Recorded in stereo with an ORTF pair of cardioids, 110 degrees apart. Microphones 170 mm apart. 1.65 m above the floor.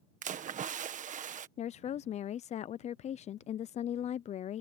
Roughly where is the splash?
Ahead right.